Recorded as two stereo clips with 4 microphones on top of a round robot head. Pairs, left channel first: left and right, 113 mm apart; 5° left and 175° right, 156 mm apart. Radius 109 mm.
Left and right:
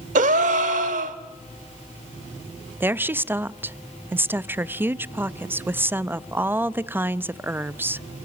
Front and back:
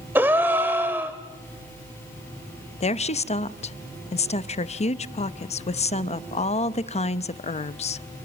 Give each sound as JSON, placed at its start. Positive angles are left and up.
{"t": 0.1, "sound": "a gasp", "azimuth_deg": -95, "distance_m": 0.9}
{"t": 2.8, "sound": "a woman speaking", "azimuth_deg": -25, "distance_m": 0.7}